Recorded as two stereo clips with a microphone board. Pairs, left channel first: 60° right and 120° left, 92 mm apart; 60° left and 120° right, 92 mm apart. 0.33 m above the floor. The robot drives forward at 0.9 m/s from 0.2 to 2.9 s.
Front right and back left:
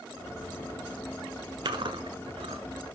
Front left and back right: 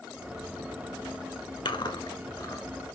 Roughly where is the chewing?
Left.